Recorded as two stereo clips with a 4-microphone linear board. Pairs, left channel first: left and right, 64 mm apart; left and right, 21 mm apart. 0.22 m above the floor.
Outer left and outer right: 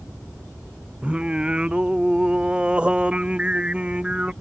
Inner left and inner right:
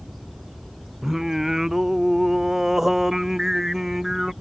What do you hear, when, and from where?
1.0 s singing: 20° right (ahead or behind)